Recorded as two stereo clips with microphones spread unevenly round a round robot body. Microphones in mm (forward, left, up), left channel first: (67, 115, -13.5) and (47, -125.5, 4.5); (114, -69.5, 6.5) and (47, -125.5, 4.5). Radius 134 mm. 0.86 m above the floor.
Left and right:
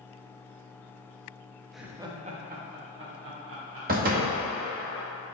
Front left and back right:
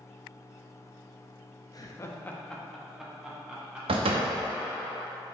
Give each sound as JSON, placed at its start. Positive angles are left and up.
{"t": 1.7, "sound": "laughter", "azimuth_deg": 0, "distance_m": 0.9}
{"t": 3.9, "sound": "a door slam", "azimuth_deg": -155, "distance_m": 0.7}